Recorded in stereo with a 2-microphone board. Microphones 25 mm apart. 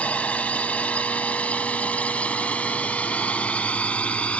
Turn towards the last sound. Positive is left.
turn(degrees=65)  # may be behind; listen again after turning